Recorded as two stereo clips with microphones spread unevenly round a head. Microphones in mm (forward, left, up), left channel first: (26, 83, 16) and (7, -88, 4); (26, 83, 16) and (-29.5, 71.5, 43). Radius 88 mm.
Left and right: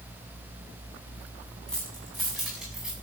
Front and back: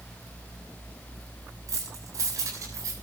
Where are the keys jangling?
170° left, 7 m; by 2.9 s 175° left, 7.5 m.